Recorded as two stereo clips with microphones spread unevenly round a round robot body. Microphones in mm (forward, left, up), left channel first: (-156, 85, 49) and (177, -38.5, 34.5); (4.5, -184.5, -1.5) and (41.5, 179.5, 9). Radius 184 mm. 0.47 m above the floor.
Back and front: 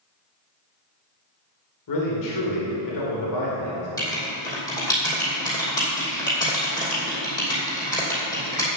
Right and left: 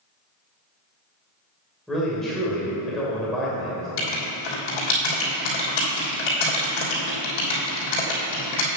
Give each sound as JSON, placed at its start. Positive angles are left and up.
{"t": 1.9, "sound": "a man speaking", "azimuth_deg": 175, "distance_m": 2.0}
{"t": 4.0, "sound": "writing", "azimuth_deg": -120, "distance_m": 3.0}